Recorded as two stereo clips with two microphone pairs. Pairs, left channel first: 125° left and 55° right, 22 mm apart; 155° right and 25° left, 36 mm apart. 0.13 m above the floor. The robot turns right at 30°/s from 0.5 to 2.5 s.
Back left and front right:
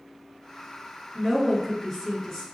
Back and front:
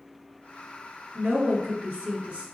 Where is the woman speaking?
25° left, 1.5 m; by 2.5 s 60° left, 1.5 m.